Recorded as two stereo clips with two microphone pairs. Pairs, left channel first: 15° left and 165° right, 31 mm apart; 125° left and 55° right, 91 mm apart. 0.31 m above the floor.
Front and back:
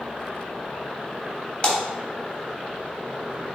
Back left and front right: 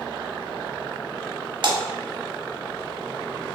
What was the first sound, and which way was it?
A splash, 40° right.